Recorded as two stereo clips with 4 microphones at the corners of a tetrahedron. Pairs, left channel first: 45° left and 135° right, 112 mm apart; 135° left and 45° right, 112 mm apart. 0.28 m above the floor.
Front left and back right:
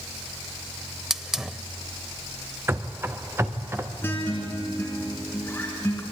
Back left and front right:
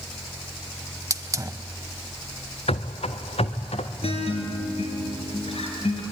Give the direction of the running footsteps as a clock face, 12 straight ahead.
7 o'clock.